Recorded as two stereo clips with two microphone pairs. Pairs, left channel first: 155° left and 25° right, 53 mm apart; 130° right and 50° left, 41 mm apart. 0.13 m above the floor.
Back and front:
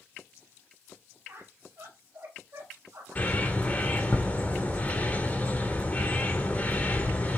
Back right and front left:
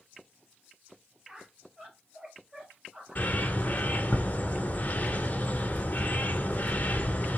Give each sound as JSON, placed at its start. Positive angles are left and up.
{"t": 1.3, "sound": "a squeak", "azimuth_deg": -20, "distance_m": 1.8}
{"t": 3.1, "sound": "a bird", "azimuth_deg": -160, "distance_m": 1.3}